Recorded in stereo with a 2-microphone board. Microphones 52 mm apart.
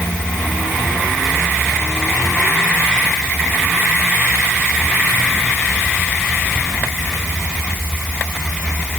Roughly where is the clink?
No clink in this recording.